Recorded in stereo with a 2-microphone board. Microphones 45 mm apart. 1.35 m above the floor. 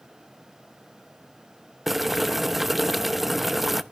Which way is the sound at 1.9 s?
5° right (ahead or behind).